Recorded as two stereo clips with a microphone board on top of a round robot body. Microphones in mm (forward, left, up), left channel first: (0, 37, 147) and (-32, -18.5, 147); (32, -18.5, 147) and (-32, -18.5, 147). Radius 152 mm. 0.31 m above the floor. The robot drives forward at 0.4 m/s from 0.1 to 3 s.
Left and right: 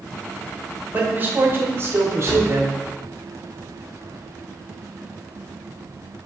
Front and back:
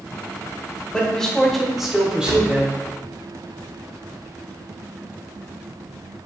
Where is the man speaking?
70° right, 1.3 m; by 2.7 s 120° right, 1.3 m.